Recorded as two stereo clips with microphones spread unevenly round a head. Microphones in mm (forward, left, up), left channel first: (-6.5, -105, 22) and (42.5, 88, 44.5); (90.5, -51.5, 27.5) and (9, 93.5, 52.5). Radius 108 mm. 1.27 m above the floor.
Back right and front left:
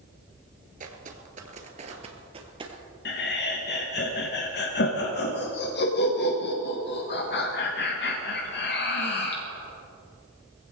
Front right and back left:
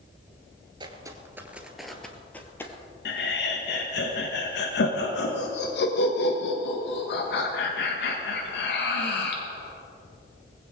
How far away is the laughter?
About 1.4 m.